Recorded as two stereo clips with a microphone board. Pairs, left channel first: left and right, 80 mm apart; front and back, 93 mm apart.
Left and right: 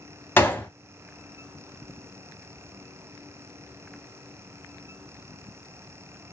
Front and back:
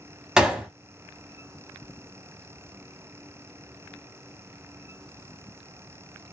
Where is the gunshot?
105° left, 0.5 m.